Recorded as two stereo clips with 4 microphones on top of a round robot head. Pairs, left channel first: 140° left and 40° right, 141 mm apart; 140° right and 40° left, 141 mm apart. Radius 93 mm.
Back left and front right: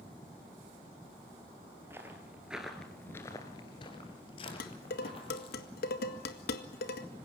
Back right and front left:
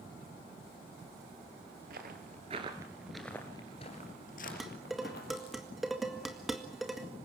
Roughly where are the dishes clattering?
Behind left.